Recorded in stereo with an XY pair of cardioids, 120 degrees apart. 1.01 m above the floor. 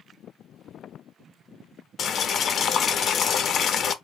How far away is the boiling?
About 0.6 m.